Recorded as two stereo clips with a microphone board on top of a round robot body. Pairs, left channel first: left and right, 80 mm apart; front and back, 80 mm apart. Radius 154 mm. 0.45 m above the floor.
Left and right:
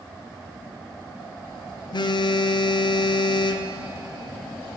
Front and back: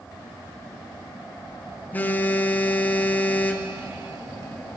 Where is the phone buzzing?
70° left, 0.6 m.